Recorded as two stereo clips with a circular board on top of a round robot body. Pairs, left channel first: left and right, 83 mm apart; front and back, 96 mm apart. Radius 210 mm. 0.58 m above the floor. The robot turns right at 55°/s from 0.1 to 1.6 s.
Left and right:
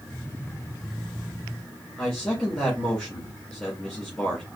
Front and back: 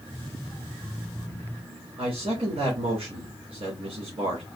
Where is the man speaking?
170° left, 2.0 m.